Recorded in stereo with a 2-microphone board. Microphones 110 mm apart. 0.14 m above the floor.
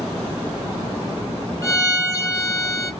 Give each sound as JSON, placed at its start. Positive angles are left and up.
{"t": 1.6, "sound": "a violin", "side_deg": 30, "distance_m": 0.8}